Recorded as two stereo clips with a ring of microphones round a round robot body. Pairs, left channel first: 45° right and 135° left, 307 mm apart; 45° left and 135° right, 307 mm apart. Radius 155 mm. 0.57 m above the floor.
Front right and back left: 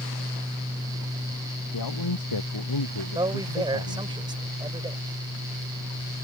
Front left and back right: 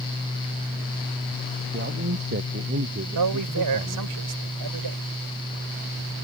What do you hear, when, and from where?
1.7 s a man speaking: 75° right; by 4.2 s 70° right
3.1 s a man speaking: 150° right